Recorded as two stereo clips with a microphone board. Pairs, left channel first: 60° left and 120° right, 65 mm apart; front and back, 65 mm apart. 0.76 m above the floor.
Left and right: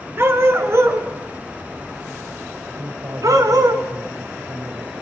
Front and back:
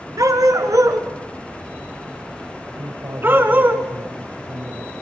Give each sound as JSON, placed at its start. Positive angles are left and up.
{"t": 0.2, "sound": "a dog barking", "azimuth_deg": -165, "distance_m": 3.0}
{"t": 2.8, "sound": "a man speaking", "azimuth_deg": -150, "distance_m": 3.0}